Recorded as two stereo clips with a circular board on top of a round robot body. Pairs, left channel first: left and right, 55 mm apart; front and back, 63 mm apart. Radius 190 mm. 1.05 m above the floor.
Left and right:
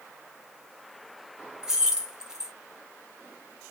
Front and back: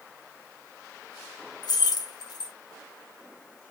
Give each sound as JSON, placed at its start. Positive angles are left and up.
{"t": 1.6, "sound": "keys jangling", "azimuth_deg": -10, "distance_m": 0.5}